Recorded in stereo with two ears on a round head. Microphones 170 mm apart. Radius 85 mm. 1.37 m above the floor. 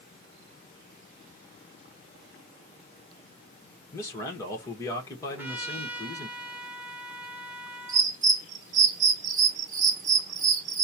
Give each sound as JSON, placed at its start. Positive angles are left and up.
{"t": 3.9, "sound": "a man speaking", "side_deg": 15, "distance_m": 1.3}
{"t": 5.3, "sound": "a trumpet", "side_deg": -10, "distance_m": 0.9}
{"t": 7.9, "sound": "a bird", "side_deg": -40, "distance_m": 0.9}